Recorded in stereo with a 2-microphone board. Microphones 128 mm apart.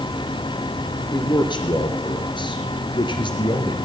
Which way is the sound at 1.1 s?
40° left (ahead or behind).